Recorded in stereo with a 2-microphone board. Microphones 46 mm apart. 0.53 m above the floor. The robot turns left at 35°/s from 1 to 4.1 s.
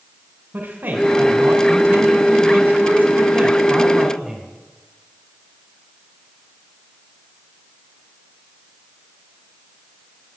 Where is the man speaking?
60° right, 2.5 m; by 4.5 s 165° right, 2.5 m.